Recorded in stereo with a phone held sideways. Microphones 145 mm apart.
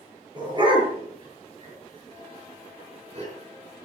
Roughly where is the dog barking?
Right.